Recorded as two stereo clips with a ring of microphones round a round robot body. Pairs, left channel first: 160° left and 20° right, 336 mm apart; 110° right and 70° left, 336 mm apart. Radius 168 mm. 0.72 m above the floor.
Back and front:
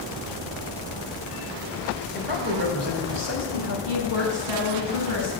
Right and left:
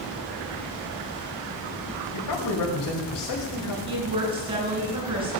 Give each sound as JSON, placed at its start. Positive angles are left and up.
{"t": 2.1, "sound": "a man speaking", "azimuth_deg": -85, "distance_m": 5.0}
{"t": 3.9, "sound": "a woman speaking", "azimuth_deg": -10, "distance_m": 7.0}